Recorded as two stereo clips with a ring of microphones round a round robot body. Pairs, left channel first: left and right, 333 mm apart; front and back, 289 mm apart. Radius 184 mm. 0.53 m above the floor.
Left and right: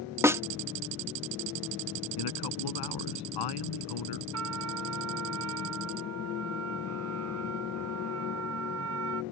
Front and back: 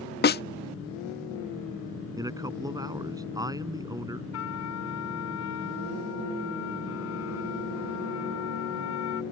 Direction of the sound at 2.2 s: 105° left.